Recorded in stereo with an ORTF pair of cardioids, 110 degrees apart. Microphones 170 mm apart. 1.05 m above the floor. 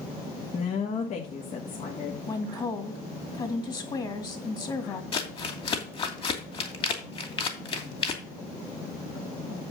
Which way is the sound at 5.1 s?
30° left.